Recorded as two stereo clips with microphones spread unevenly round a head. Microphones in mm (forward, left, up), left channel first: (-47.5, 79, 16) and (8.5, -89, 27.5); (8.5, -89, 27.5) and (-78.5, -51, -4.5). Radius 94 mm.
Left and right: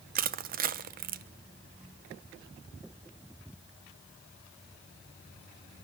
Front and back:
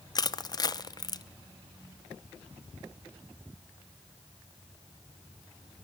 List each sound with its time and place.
0.1 s crushing: 75° right, 0.8 m